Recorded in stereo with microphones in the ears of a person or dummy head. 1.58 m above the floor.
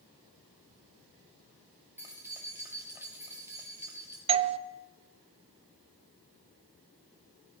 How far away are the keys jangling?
About 1.8 m.